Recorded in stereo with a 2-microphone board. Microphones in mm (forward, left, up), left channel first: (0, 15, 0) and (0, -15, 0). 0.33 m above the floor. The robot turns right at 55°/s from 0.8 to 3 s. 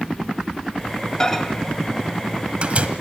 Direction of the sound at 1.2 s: 25° left (ahead or behind).